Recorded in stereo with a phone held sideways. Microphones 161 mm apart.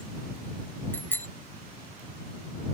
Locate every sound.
0.9 s a bicycle bell: 10° left (ahead or behind)